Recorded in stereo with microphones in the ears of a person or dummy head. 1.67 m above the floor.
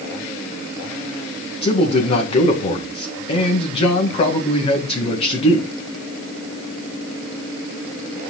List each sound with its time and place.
1.6 s a man speaking: 30° left (ahead or behind), 1.9 m